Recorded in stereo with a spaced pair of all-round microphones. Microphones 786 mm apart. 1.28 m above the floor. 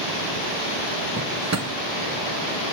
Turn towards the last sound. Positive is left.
turn(degrees=-20)  # may be behind; listen again after turning